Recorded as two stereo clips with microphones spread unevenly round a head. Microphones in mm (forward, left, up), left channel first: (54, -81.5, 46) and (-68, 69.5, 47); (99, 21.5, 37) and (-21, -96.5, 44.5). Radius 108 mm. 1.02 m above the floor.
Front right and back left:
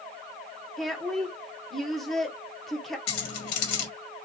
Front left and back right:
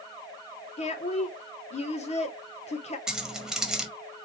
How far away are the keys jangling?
About 1.1 m.